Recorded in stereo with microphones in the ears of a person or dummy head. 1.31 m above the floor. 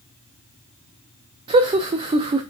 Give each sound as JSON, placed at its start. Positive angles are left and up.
{"t": 1.5, "sound": "laughter", "side_deg": -30, "distance_m": 0.5}